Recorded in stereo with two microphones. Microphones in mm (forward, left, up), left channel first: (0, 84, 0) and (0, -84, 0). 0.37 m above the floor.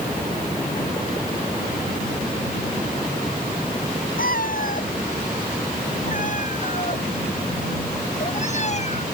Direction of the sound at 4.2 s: 65° left (ahead or behind).